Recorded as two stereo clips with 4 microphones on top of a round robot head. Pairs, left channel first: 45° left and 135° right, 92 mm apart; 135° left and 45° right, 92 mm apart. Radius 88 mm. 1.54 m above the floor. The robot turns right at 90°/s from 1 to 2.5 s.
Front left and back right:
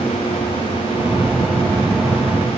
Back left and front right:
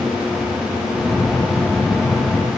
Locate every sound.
Only background noise.